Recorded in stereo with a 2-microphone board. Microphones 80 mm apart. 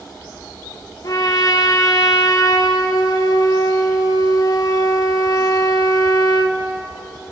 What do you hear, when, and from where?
1.0 s a trumpet: 45° left (ahead or behind), 2 m